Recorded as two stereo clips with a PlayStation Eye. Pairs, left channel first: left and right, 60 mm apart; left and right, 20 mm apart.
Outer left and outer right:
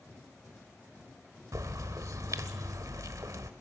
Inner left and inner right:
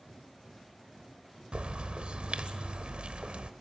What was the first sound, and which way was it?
A bird, 70° right (ahead or behind).